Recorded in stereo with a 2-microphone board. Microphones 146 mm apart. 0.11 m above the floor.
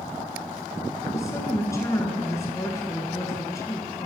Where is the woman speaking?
20° left (ahead or behind), 1.3 m.